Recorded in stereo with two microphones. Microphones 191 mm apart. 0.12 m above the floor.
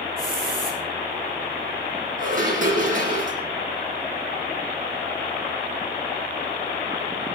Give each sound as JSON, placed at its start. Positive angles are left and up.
{"t": 0.2, "sound": "a hiss", "side_deg": -50, "distance_m": 10.0}
{"t": 2.2, "sound": "dishes clattering", "side_deg": -45, "distance_m": 4.5}